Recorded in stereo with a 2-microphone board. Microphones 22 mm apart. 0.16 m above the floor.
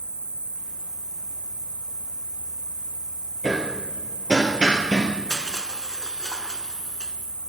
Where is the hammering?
35° right (ahead or behind), 2.5 m.